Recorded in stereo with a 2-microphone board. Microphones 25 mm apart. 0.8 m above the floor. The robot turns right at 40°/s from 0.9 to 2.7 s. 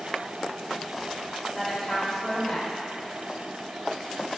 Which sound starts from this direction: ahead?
A woman speaking, at 1.6 s.